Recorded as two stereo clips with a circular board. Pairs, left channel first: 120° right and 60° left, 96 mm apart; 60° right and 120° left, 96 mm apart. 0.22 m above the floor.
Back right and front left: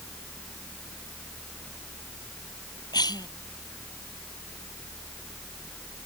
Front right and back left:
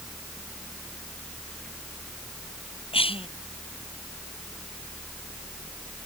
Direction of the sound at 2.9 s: 75° right.